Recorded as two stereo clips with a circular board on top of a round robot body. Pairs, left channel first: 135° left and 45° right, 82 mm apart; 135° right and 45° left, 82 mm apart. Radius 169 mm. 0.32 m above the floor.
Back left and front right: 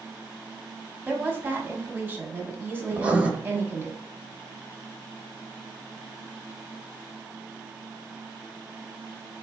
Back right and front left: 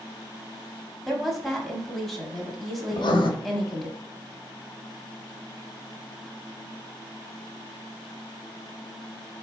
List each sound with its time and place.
1.1 s a woman speaking: 55° right, 1.3 m
2.9 s writing: 120° right, 0.6 m